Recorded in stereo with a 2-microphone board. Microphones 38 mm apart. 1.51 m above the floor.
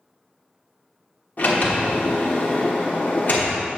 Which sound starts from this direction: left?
A sliding door, at 1.4 s.